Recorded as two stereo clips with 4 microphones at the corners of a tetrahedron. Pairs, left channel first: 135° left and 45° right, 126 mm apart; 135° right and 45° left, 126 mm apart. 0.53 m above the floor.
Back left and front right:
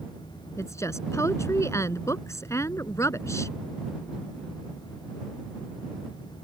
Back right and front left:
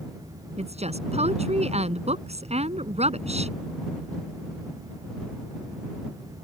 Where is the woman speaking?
70° left.